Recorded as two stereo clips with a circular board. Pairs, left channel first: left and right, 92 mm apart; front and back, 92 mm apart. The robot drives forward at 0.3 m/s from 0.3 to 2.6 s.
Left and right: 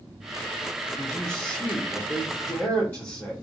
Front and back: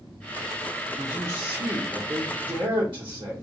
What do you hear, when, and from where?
1.0 s a man speaking: 135° left, 0.8 m; by 3.3 s 155° left, 1.1 m